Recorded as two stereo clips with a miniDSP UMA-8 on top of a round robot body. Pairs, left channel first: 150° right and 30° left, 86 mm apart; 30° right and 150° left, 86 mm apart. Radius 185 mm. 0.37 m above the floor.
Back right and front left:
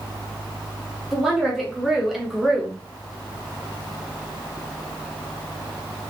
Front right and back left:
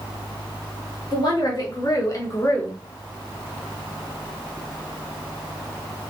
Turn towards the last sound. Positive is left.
turn(degrees=-55)